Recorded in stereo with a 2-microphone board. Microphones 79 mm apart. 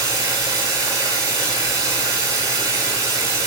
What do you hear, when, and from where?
0.0 s running water: 60° right (ahead or behind), 8.5 m